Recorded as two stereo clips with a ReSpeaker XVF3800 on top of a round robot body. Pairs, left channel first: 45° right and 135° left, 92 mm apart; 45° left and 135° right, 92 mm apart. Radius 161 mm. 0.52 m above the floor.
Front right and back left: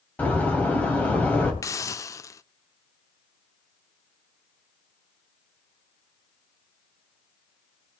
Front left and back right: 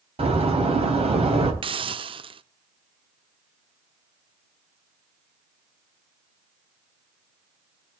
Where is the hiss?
105° right, 0.6 m.